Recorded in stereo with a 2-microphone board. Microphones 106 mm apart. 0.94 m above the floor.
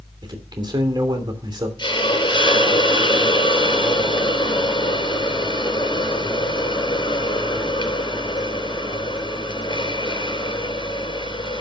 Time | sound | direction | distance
0.2 | a man speaking | 40° right (ahead or behind) | 3 m
1.8 | a hiss | 45° left (ahead or behind) | 4 m